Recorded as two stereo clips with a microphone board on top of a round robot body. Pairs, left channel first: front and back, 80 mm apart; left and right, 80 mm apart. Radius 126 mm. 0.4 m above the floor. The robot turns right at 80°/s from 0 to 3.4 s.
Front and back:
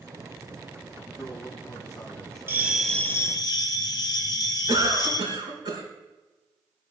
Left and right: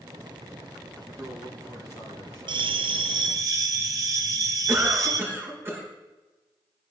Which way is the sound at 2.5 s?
115° right.